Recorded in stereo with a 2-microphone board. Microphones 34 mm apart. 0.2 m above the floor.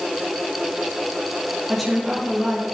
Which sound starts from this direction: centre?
A woman speaking, at 1.7 s.